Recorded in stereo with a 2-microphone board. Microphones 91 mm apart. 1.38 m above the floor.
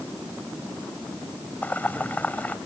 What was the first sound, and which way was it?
Boiling, 20° left (ahead or behind).